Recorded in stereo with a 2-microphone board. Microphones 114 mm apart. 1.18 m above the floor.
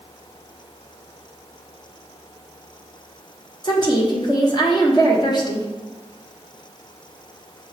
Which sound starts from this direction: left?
A woman speaking, at 3.6 s.